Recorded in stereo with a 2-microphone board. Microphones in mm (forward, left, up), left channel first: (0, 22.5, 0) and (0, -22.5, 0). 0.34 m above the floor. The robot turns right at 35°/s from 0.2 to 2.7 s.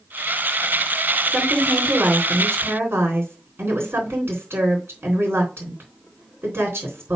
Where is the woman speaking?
155° right, 4 m; by 7.2 s 110° right, 4 m.